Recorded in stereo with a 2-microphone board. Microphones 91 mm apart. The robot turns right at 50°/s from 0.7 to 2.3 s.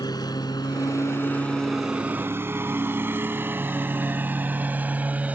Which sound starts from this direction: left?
A lawn mower, at 0.0 s.